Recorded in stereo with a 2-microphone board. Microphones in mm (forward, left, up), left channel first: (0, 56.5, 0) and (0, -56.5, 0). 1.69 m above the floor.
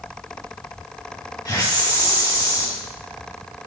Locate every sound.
1.4 s a hiss: 35° left (ahead or behind), 3 m